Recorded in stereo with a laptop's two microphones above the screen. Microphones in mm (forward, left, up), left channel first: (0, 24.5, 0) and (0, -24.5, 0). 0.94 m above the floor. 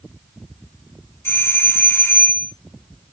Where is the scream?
I don't hear a scream.